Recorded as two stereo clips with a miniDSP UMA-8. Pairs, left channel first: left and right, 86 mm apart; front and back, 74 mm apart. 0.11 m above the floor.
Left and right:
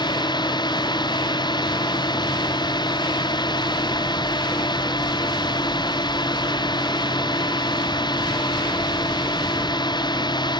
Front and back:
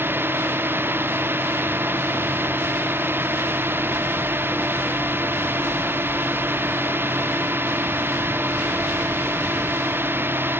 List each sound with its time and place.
0.0 s a drone: 120° left